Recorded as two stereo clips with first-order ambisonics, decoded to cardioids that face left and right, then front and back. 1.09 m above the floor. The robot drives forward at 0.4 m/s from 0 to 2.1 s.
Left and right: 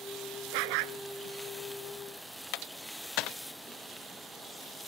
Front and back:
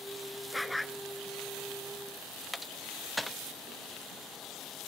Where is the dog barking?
85° right; by 1.0 s 90° right.